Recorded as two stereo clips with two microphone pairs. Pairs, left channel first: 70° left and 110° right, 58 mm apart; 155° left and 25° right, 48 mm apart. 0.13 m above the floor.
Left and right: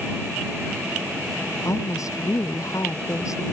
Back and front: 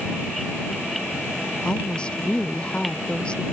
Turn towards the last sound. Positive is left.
turn(degrees=80)